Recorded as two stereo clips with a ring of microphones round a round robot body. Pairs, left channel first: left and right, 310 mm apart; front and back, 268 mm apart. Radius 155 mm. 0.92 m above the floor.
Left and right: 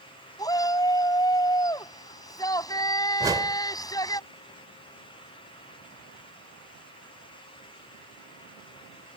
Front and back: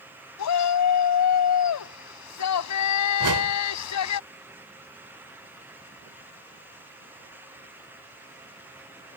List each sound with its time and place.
0.4 s a shout: 10° left
3.2 s a whoosh: 170° right